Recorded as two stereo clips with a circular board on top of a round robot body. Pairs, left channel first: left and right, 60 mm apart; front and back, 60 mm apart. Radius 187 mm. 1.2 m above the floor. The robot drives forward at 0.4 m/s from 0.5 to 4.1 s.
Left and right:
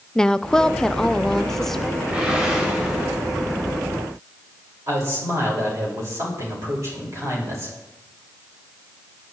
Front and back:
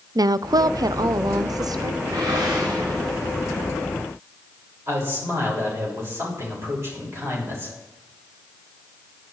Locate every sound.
0.1 s a woman speaking: 170° left, 0.5 m; by 1.9 s 175° left, 1.1 m
2.0 s a whoosh: 165° right, 1.9 m
4.9 s a man speaking: 135° right, 7 m